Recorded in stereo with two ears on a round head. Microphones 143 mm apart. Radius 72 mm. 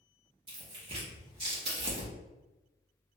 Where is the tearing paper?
35° right (ahead or behind), 2 m.